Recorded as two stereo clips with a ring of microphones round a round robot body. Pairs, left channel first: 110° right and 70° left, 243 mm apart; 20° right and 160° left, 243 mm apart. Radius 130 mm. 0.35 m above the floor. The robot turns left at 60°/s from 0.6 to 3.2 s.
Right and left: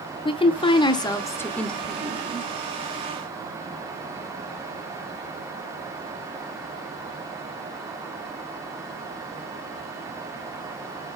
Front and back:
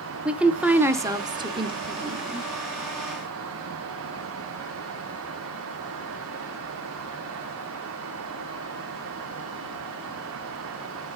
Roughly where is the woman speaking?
Behind right.